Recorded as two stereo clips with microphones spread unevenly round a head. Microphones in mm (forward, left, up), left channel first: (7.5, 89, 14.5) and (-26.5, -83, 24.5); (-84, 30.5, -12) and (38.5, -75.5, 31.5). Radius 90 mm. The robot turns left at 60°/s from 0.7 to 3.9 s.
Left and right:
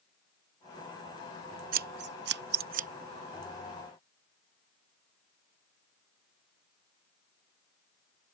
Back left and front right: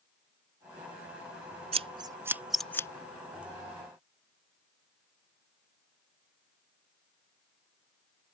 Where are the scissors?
70° right; by 2.9 s 140° right.